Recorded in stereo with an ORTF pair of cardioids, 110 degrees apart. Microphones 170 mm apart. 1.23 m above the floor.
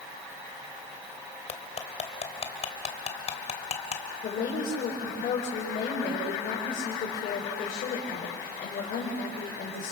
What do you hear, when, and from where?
1.5 s cutlery clinking: 40° left, 2.5 m
4.2 s a woman speaking: 55° left, 5 m